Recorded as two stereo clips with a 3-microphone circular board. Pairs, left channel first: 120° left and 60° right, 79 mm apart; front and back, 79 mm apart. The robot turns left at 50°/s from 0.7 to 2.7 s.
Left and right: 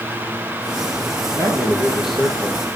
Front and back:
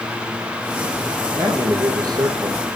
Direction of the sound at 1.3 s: 110° right.